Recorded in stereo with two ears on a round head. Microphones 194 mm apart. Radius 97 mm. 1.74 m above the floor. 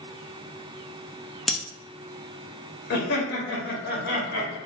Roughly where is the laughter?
Left.